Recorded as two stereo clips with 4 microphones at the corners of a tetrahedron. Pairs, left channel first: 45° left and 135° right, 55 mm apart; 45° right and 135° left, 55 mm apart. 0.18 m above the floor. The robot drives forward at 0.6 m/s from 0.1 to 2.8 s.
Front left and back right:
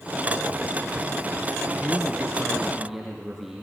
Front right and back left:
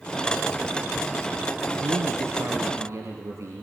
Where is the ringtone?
I don't hear a ringtone.